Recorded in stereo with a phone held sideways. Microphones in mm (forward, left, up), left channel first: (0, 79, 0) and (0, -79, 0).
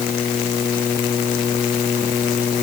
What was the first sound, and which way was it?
Only background noise.